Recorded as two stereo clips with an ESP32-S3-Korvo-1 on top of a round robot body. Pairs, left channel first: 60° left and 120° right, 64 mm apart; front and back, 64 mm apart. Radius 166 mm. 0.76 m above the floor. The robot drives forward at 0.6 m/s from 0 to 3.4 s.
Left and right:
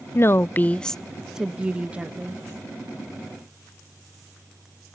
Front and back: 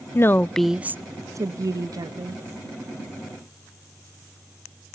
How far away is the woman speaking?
About 0.5 m.